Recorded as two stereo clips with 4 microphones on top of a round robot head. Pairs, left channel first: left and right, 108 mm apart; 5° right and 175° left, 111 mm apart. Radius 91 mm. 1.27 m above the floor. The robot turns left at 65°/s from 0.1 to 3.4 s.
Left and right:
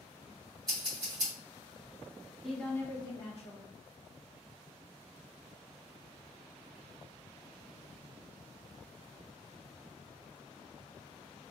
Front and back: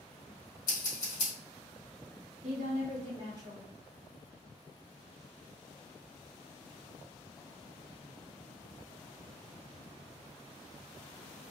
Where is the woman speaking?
Straight behind, 1.6 m; by 3.7 s 120° left, 1.6 m.